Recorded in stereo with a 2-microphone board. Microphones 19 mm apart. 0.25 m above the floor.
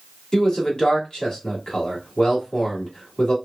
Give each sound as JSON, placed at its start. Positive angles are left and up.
{"t": 0.3, "sound": "a man speaking", "side_deg": 45, "distance_m": 1.6}